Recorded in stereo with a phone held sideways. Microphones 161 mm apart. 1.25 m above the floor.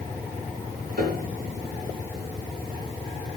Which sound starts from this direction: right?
A piano, at 1.0 s.